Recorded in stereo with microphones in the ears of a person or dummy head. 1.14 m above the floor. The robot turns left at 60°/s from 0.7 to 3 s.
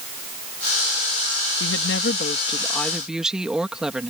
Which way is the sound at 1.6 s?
80° left.